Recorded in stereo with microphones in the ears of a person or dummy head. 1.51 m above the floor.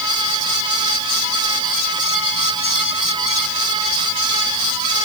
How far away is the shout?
No shout in this recording.